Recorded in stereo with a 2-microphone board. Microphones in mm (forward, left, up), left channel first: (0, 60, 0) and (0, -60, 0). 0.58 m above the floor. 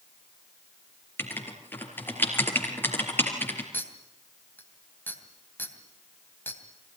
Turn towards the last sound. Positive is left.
turn(degrees=15)  # may be behind; listen again after turning